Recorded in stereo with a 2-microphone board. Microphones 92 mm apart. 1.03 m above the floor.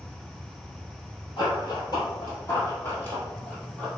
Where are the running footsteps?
50° left (ahead or behind), 1.6 m; by 3.9 s 10° left (ahead or behind), 1.6 m.